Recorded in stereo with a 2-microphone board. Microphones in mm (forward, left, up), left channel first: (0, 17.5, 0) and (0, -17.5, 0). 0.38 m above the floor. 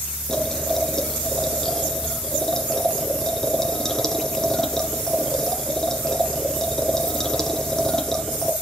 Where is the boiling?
10° left (ahead or behind), 1.8 m.